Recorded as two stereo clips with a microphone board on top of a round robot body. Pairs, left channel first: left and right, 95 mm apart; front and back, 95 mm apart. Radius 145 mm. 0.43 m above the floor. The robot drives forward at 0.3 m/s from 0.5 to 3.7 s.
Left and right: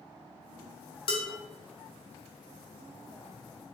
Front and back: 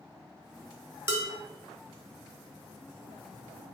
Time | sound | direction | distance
1.1 | dishes clattering | 115° left | 1.5 m